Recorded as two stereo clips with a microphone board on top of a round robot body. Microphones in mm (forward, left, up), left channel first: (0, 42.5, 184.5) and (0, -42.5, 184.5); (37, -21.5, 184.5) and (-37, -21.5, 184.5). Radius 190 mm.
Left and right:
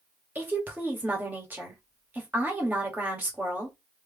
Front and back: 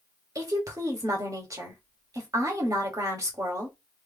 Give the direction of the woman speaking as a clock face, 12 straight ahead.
5 o'clock.